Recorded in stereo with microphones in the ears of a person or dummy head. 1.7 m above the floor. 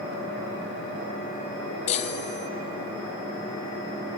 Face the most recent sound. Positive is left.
turn(degrees=40)  # may be behind; listen again after turning